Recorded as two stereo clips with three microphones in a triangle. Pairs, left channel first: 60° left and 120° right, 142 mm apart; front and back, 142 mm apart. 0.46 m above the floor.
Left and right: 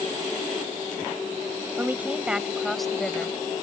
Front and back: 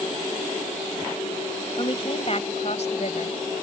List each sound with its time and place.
1.8 s a woman speaking: 45° right; by 3.4 s 20° right